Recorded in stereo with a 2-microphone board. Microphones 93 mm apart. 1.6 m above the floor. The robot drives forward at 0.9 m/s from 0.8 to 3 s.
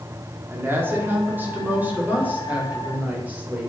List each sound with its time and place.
0.5 s a woman speaking: 25° right (ahead or behind), 4 m; by 3.7 s 15° right (ahead or behind), 6 m